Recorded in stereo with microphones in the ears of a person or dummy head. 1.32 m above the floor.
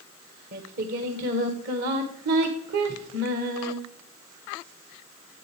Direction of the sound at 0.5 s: 50° right (ahead or behind).